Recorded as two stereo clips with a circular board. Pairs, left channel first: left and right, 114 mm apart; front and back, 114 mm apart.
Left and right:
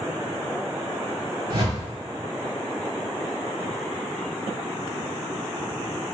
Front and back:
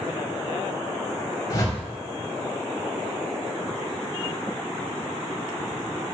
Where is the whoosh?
55° right, 0.8 m.